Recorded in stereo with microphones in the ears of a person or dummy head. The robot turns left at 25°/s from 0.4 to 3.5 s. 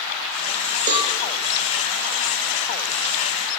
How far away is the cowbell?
About 0.6 m.